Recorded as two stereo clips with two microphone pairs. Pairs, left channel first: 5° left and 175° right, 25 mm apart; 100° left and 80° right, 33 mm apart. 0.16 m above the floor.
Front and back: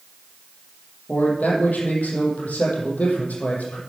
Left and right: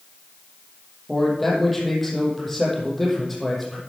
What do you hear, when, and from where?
1.1 s a man speaking: 10° left, 6.5 m